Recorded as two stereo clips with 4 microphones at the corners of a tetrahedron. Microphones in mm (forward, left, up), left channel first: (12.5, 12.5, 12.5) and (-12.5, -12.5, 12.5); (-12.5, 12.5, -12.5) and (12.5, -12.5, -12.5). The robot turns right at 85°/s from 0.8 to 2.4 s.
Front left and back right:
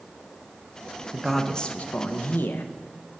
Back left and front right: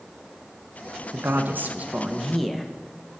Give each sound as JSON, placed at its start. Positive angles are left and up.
{"t": 1.1, "sound": "a man speaking", "azimuth_deg": -60, "distance_m": 0.6}